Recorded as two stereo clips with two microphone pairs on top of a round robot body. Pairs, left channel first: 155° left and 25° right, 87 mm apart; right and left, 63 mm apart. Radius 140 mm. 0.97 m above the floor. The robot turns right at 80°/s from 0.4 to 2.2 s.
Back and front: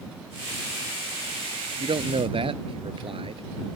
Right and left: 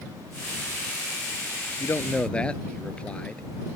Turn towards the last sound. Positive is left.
turn(degrees=-20)